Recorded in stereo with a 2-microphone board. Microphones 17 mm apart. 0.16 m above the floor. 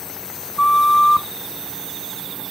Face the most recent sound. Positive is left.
turn(degrees=35)  # may be behind; listen again after turning